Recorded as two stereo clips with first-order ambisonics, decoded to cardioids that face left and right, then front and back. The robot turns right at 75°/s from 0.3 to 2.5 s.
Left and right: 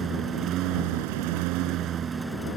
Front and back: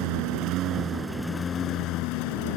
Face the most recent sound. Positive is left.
turn(degrees=10)